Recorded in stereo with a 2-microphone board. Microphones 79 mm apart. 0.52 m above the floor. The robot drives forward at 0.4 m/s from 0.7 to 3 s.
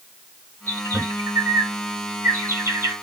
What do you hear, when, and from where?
0.7 s a bird: 35° right (ahead or behind), 1.2 m